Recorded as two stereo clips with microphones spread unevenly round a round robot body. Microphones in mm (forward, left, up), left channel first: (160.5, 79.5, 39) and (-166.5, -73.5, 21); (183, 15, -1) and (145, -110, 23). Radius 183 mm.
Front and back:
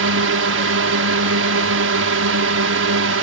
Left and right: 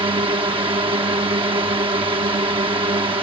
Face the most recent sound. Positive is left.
turn(degrees=-150)